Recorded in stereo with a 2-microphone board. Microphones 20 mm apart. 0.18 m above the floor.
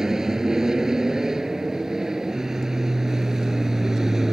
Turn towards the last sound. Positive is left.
turn(degrees=-30)  # may be behind; listen again after turning